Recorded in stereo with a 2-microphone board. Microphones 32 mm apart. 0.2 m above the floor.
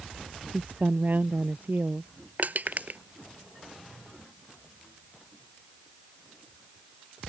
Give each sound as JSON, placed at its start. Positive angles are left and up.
{"t": 0.5, "sound": "a woman speaking", "side_deg": -70}
{"t": 2.4, "sound": "crushing", "side_deg": -60}